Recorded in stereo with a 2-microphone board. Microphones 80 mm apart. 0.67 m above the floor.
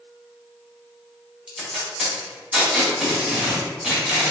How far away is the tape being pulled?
About 1.7 m.